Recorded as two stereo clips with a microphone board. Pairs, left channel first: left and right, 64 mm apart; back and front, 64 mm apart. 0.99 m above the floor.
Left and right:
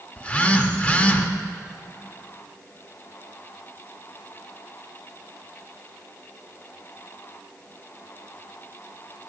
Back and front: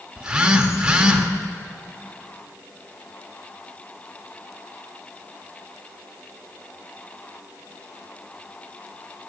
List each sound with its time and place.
0.2 s a phone buzzing: 55° left, 0.6 m